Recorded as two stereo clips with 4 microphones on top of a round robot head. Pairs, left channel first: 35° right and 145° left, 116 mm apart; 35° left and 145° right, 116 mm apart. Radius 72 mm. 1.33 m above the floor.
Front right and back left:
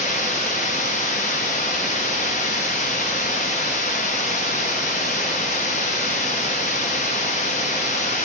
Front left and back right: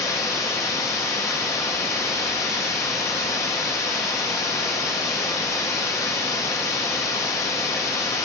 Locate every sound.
0.0 s running water: 30° right, 0.8 m